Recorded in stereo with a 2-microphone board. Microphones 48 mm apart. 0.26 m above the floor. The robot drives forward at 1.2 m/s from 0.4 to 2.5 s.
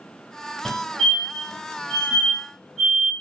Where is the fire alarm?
10° left (ahead or behind), 2.0 m; by 3.1 s 5° left (ahead or behind), 3.5 m.